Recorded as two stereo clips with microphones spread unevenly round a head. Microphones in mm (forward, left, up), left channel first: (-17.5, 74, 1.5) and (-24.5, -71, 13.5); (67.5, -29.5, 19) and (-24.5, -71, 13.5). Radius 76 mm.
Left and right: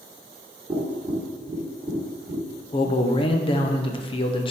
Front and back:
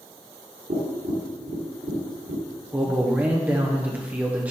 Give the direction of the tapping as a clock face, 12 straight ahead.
5 o'clock.